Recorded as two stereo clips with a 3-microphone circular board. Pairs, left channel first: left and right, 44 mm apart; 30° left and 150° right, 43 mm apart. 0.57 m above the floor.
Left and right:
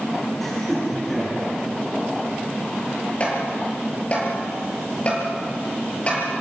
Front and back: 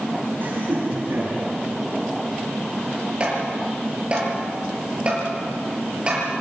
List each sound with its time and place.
0.4 s laughter: 170° left, 8 m
3.2 s tapping: 145° left, 7 m